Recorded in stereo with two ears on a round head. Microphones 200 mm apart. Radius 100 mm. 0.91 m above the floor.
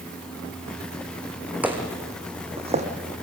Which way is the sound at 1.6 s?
10° right (ahead or behind).